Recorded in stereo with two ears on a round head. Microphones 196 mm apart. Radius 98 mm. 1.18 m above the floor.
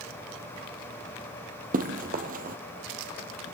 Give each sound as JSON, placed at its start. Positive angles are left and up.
{"t": 1.7, "sound": "running footsteps", "side_deg": -40, "distance_m": 2.0}